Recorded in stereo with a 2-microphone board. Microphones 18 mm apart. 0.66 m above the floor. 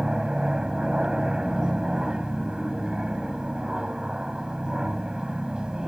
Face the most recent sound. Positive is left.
turn(degrees=-40)  # may be behind; listen again after turning